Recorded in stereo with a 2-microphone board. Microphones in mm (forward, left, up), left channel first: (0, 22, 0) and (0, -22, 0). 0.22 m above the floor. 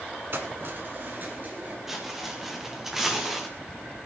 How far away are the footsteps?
About 4 m.